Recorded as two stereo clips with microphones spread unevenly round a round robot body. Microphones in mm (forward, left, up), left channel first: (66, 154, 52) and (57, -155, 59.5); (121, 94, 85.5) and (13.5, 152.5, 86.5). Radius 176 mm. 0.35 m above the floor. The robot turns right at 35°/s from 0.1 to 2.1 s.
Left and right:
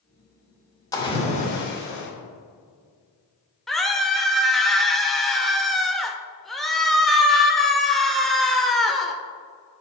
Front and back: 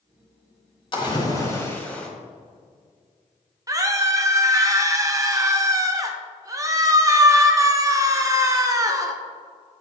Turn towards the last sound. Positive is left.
turn(degrees=175)